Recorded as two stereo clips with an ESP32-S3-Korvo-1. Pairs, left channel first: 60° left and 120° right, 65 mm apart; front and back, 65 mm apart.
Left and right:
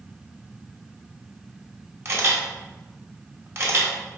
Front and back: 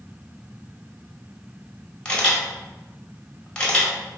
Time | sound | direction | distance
2.0 | a camera shutter | 75° right | 2 m